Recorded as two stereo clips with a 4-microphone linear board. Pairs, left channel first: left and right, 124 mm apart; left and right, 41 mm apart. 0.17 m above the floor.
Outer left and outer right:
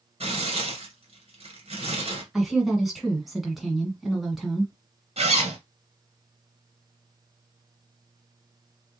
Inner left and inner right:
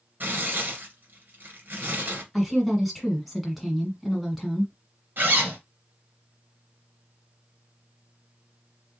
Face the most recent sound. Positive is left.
turn(degrees=-55)  # may be behind; listen again after turning